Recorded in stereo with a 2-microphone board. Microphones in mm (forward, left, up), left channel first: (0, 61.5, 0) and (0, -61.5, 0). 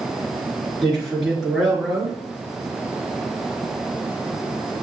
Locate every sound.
0.8 s a man speaking: centre (ahead or behind), 2.0 m